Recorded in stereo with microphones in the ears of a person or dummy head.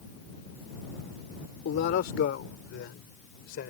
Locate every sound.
1.6 s a man speaking: 65° left (ahead or behind)